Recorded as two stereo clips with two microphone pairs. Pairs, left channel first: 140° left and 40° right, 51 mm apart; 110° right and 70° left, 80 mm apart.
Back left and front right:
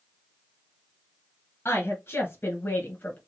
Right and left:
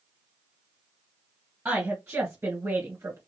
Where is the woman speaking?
130° left, 2.5 m; by 3.2 s 105° left, 2 m.